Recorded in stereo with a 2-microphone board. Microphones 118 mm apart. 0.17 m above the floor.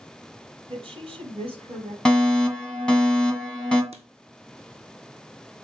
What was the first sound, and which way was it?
A woman speaking, 50° right (ahead or behind).